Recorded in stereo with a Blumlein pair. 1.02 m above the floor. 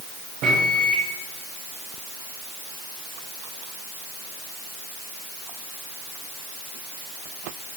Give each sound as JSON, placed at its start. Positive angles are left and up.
{"t": 0.4, "sound": "a microwave", "azimuth_deg": -35, "distance_m": 3.5}